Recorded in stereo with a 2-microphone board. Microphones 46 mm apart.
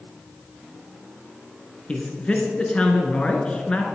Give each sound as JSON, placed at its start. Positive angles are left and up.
{"t": 1.9, "sound": "a man speaking", "side_deg": 25, "distance_m": 1.4}